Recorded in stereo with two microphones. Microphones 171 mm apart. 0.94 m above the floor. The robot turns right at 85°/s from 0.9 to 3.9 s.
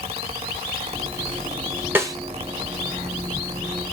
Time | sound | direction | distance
1.9 | a snare drum | 10° right (ahead or behind) | 0.9 m